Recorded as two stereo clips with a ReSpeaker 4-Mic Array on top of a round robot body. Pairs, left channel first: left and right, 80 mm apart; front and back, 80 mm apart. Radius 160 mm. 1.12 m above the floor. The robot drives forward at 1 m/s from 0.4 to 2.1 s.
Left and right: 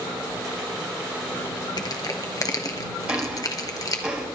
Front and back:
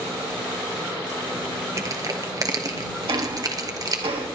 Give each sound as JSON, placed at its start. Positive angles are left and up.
{"t": 1.8, "sound": "crushing", "azimuth_deg": 125, "distance_m": 1.3}
{"t": 3.1, "sound": "ticking", "azimuth_deg": -165, "distance_m": 3.0}